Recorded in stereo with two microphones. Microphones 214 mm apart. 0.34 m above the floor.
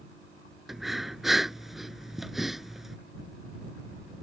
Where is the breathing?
Centre (ahead or behind).